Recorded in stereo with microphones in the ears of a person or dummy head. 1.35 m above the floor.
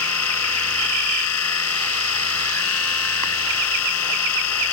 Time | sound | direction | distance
0.0 | a machine running | 75° left (ahead or behind) | ?